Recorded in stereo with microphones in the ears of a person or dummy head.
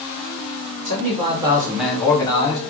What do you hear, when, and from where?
0.8 s a man speaking: 35° right (ahead or behind), 0.9 m; by 2.6 s 35° left (ahead or behind), 0.8 m